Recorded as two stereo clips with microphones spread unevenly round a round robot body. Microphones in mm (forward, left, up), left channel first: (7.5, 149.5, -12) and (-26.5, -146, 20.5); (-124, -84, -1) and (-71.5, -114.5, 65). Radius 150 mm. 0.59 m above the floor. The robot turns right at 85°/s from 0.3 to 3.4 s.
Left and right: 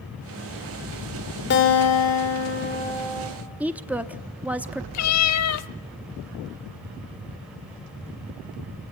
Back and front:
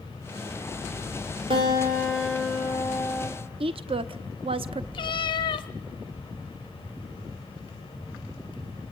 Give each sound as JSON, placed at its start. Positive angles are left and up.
{"t": 1.5, "sound": "a guitar", "azimuth_deg": 35, "distance_m": 2.5}
{"t": 3.6, "sound": "a woman speaking", "azimuth_deg": -5, "distance_m": 0.7}
{"t": 4.9, "sound": "a cat meowing", "azimuth_deg": 125, "distance_m": 0.6}